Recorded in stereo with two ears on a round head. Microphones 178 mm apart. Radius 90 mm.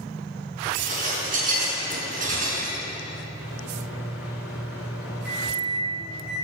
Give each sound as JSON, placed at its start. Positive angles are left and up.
{"t": 0.7, "sound": "dishes clattering", "side_deg": -45, "distance_m": 5.0}
{"t": 3.4, "sound": "a microwave", "side_deg": -5, "distance_m": 6.5}